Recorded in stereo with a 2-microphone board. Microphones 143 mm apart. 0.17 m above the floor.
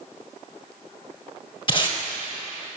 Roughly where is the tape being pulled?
Left.